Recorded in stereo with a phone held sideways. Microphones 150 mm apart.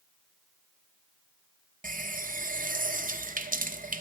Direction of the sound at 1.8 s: 65° right (ahead or behind).